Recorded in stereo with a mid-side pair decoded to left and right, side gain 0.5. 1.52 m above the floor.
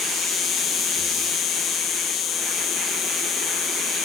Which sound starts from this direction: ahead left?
An insect, at 0.0 s.